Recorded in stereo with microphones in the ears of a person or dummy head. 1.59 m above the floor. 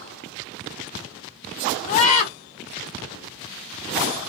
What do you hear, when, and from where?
1.9 s a scream: 35° left (ahead or behind), 1.3 m